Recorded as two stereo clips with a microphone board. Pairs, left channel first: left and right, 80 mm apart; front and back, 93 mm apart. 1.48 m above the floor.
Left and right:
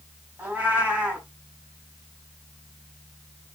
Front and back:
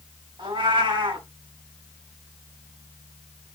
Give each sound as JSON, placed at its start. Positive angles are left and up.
{"t": 0.4, "sound": "a cat meowing", "azimuth_deg": -155, "distance_m": 4.0}